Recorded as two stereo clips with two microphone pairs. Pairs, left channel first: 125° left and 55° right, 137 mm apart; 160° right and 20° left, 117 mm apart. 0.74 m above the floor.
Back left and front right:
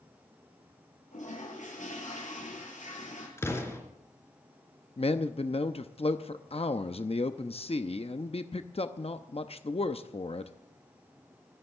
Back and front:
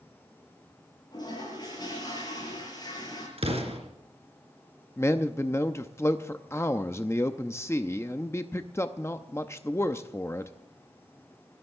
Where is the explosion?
55° left, 4 m.